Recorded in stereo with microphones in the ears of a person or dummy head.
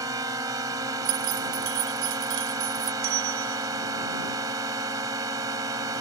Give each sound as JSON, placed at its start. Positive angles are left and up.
{"t": 0.0, "sound": "a drone", "side_deg": -20}
{"t": 1.1, "sound": "keys jangling", "side_deg": -70}
{"t": 3.0, "sound": "a bell", "side_deg": -75}